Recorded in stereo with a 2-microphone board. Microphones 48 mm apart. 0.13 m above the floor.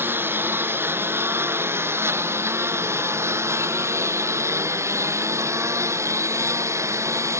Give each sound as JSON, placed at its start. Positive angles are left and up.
{"t": 0.0, "sound": "a lawn mower", "side_deg": -50}